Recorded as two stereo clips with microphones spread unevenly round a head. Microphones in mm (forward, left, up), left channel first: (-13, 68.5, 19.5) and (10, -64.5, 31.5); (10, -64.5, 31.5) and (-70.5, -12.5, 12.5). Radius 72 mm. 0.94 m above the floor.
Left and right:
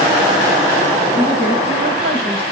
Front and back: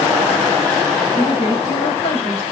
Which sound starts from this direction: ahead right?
A woman speaking, at 1.1 s.